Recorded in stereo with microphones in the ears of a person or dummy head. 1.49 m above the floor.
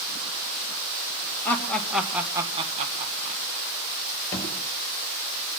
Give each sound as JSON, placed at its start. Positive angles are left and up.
{"t": 1.4, "sound": "laughter", "side_deg": 10, "distance_m": 2.0}
{"t": 4.3, "sound": "a thud", "side_deg": 15, "distance_m": 5.0}